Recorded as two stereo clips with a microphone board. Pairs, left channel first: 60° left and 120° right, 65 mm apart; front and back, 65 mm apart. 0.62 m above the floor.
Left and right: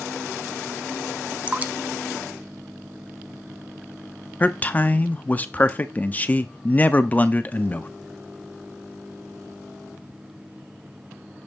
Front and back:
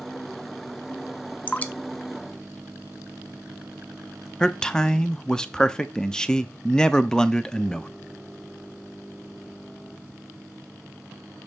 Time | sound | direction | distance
1.5 | dripping | 60° right | 0.5 m
4.4 | a man speaking | 60° left | 0.6 m